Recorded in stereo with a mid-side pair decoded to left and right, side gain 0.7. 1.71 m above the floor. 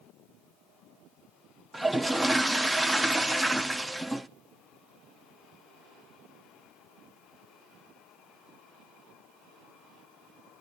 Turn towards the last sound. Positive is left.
turn(degrees=-5)